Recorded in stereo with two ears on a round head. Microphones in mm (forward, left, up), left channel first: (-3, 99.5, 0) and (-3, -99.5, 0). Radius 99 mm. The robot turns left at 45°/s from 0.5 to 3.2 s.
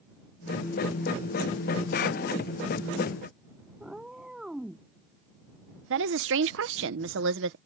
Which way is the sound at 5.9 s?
65° right (ahead or behind).